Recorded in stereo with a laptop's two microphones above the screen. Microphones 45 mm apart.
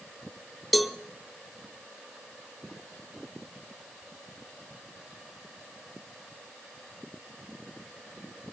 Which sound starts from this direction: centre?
A cowbell, at 0.7 s.